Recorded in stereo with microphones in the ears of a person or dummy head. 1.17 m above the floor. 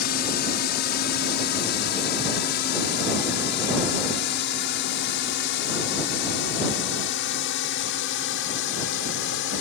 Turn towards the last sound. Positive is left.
turn(degrees=70)  # may be behind; listen again after turning